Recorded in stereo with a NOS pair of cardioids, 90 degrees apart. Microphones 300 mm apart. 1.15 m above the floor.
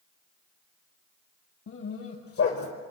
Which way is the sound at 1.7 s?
50° left.